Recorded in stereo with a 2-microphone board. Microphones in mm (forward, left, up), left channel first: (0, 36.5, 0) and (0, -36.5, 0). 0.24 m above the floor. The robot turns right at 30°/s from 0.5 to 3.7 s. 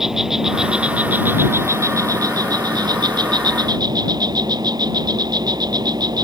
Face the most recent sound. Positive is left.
turn(degrees=-80)